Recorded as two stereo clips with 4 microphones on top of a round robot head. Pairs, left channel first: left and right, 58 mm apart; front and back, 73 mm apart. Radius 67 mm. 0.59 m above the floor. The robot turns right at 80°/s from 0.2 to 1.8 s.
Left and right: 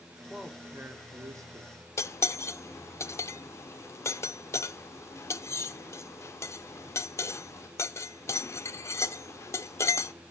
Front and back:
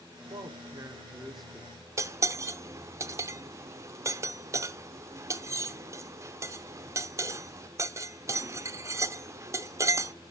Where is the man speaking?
175° right, 1.5 m; by 1.7 s 60° right, 1.5 m.